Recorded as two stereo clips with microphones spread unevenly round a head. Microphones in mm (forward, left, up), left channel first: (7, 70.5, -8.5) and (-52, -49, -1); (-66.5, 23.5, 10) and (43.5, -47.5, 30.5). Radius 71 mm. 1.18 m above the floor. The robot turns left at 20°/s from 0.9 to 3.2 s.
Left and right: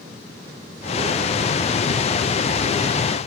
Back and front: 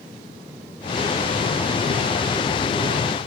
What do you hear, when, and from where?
Only background noise.